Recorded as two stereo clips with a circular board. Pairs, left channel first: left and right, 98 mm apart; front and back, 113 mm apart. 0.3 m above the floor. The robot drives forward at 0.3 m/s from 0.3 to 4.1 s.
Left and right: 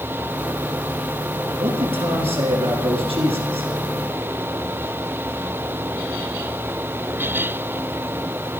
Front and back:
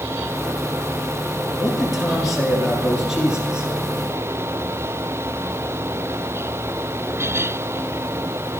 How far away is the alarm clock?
No alarm clock in this recording.